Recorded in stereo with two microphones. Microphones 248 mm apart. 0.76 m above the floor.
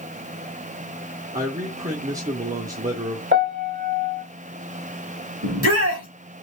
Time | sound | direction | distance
1.3 | a man speaking | 30° right (ahead or behind) | 1.2 m
3.3 | a piano | 45° right (ahead or behind) | 1.4 m
5.4 | a shout | 70° right (ahead or behind) | 2.5 m